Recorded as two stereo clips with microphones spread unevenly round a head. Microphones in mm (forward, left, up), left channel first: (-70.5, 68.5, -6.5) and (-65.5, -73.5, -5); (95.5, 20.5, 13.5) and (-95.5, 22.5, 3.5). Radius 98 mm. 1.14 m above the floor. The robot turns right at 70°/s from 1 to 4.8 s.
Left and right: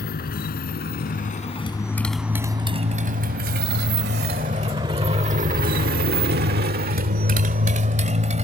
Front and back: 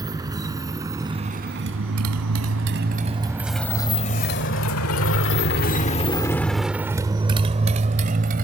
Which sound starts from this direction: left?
A motorcycle, at 0.0 s.